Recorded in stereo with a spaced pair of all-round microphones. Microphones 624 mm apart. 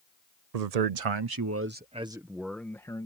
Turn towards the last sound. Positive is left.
turn(degrees=5)  # may be behind; listen again after turning